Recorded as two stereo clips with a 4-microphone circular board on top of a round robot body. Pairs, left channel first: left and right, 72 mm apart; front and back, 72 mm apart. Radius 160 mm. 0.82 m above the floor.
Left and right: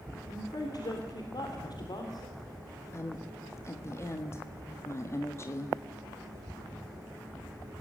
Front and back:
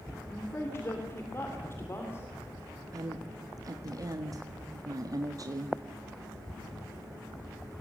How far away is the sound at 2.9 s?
About 1.5 m.